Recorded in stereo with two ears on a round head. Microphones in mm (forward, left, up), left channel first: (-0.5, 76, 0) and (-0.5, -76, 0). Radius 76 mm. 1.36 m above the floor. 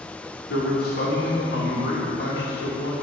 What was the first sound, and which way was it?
A man speaking, 65° left (ahead or behind).